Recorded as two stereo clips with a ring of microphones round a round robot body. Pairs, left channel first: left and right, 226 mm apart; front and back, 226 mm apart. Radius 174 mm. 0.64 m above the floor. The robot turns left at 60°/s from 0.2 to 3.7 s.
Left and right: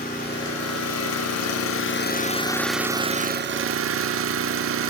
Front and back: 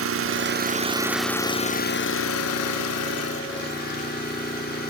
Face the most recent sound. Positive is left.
turn(degrees=-60)